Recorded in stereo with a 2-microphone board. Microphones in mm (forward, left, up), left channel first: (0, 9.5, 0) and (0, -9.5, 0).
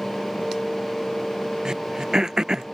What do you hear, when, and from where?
1.6 s throat clearing: 35° right (ahead or behind)